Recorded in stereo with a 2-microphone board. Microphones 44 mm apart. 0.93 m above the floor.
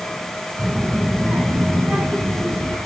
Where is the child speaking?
85° right, 3 m.